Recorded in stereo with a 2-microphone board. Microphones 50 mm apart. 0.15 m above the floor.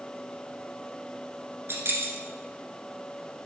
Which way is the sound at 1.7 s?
50° right (ahead or behind).